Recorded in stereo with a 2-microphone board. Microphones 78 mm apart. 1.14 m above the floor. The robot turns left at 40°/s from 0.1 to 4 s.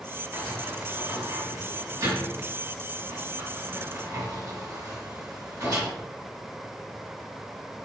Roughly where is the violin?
I don't hear a violin.